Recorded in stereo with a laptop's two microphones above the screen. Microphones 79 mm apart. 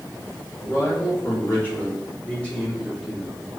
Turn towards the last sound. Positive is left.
turn(degrees=5)  # may be behind; listen again after turning